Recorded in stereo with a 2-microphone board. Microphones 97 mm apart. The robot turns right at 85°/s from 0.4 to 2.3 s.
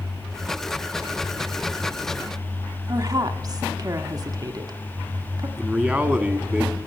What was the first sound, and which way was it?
A woman speaking, 40° right (ahead or behind).